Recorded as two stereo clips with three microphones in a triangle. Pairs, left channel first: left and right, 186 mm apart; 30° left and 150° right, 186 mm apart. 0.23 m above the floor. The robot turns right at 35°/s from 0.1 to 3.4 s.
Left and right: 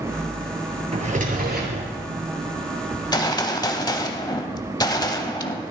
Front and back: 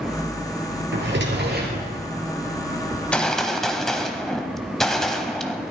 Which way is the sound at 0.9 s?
145° right.